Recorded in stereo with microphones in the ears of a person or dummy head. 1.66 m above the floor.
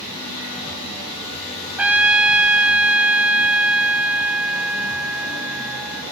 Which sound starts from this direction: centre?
A trumpet, at 1.8 s.